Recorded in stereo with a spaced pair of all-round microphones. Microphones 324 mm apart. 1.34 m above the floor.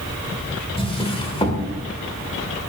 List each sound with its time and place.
0.8 s a drawer: 15° left (ahead or behind), 2 m